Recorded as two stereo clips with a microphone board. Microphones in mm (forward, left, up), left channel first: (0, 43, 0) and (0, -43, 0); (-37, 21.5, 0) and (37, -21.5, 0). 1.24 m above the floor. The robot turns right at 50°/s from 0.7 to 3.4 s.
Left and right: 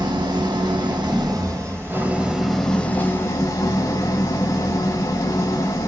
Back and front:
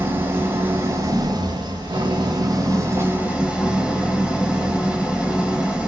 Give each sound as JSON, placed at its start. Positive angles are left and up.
{"t": 0.0, "sound": "an engine running", "azimuth_deg": -90, "distance_m": 1.7}